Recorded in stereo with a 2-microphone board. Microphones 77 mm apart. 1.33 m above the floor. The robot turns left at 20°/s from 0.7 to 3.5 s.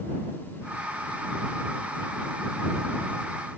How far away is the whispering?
I don't hear whispering.